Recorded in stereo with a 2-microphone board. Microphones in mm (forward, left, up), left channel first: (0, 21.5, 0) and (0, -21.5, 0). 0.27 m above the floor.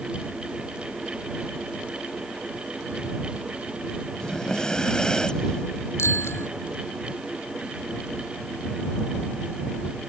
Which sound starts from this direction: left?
A bicycle bell, at 6.0 s.